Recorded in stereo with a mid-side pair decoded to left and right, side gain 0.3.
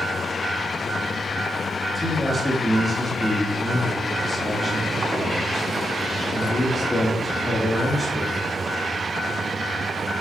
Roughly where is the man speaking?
Ahead.